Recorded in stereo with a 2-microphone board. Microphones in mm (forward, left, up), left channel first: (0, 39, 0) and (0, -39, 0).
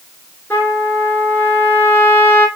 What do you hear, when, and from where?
0.5 s a trumpet: 25° left (ahead or behind), 1.8 m